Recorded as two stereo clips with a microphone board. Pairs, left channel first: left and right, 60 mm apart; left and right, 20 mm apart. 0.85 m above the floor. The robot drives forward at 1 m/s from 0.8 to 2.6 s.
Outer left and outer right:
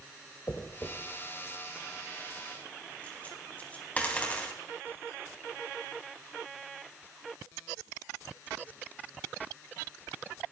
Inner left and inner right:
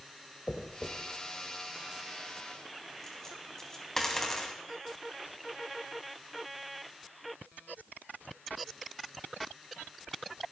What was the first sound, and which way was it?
A dropped coin, 45° left (ahead or behind).